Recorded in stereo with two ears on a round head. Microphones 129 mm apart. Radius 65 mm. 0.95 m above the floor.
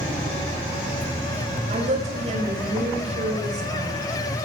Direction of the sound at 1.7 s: 50° right (ahead or behind).